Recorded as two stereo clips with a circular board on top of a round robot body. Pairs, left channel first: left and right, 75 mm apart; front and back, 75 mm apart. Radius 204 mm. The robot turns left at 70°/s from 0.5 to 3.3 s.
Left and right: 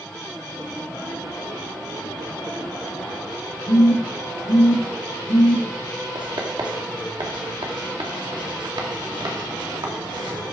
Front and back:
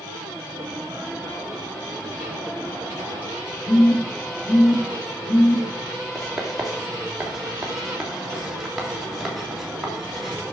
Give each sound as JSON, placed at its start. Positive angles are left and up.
{"t": 3.7, "sound": "a phone buzzing", "azimuth_deg": 25, "distance_m": 4.5}
{"t": 6.2, "sound": "writing", "azimuth_deg": -90, "distance_m": 3.0}